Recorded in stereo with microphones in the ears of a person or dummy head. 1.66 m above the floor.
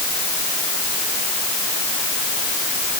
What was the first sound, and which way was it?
Only background noise.